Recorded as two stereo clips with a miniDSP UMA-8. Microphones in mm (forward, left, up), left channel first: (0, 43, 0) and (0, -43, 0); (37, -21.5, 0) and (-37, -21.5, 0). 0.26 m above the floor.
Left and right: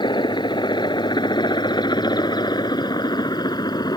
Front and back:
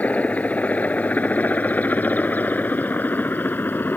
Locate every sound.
0.0 s a helicopter: 70° left; by 4.0 s 60° left